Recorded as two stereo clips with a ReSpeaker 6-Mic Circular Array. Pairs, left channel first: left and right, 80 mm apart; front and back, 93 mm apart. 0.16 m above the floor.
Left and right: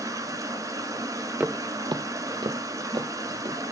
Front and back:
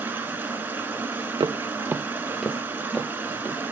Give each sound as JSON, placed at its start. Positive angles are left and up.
{"t": 0.0, "sound": "running water", "azimuth_deg": -115, "distance_m": 1.2}
{"t": 1.4, "sound": "footsteps", "azimuth_deg": -160, "distance_m": 0.5}